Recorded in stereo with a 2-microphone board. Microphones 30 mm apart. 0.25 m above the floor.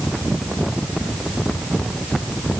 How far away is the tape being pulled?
I don't hear tape being pulled.